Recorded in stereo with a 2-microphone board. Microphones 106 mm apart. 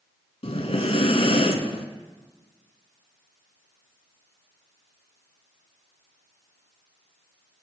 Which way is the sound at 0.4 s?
75° left (ahead or behind).